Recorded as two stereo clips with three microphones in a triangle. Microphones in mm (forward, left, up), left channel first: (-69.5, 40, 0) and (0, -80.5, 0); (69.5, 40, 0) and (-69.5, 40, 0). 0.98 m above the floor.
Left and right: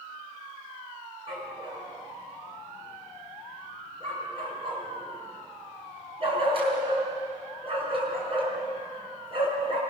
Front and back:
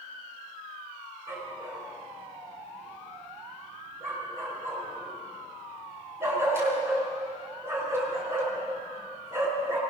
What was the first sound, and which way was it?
A dog barking, 110° right.